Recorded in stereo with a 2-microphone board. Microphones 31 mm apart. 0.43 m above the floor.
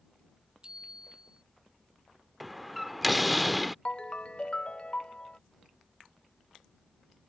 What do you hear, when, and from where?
0.6 s a bicycle bell: 25° right (ahead or behind)
2.4 s a door slam: centre (ahead or behind)
3.9 s a ringtone: 35° left (ahead or behind)